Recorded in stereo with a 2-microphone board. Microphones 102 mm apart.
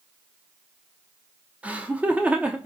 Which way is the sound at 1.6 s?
15° right (ahead or behind).